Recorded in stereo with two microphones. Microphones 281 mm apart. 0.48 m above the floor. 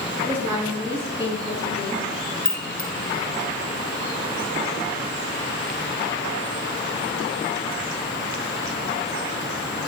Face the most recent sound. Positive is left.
turn(degrees=30)  # may be behind; listen again after turning